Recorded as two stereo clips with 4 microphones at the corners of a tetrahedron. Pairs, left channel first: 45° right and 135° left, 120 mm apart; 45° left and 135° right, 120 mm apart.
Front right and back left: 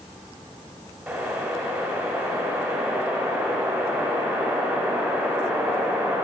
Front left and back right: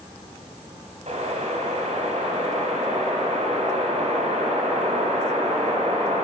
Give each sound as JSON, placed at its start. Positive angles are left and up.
{"t": 1.1, "sound": "a whoosh", "azimuth_deg": -155, "distance_m": 1.6}